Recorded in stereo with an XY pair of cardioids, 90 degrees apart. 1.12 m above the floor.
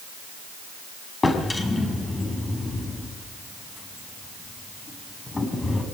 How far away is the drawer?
About 6 m.